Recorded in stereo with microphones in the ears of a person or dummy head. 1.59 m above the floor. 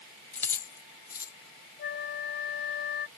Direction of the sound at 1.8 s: 45° left (ahead or behind).